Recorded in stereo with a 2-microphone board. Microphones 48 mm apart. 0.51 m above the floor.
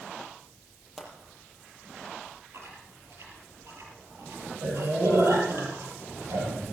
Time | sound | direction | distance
1.0 | a pop | centre (ahead or behind) | 5 m
2.5 | chewing | 70° right (ahead or behind) | 4.5 m